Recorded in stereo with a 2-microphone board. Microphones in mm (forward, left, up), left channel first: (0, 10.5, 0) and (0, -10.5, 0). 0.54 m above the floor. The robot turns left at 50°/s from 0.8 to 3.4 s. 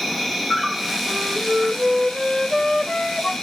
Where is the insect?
Straight behind, 3 m; by 3.4 s 50° left, 3 m.